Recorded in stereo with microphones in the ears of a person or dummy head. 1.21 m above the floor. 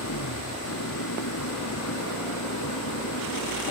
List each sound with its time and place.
0.0 s an engine running: 80° left